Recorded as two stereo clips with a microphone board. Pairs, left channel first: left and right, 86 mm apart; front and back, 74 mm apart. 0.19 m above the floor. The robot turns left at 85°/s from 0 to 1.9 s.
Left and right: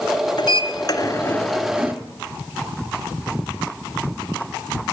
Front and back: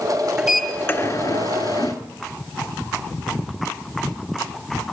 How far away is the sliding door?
About 1.9 m.